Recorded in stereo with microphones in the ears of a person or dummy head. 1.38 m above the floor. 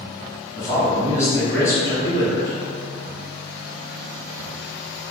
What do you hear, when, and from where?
0.6 s a man speaking: 10° left (ahead or behind), 1.4 m